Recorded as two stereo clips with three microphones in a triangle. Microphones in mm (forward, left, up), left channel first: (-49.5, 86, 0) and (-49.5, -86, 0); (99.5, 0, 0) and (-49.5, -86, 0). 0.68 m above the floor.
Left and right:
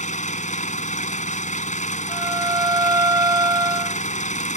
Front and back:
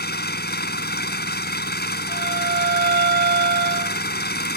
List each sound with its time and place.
0.0 s an engine running: 45° left
2.1 s a violin: 160° right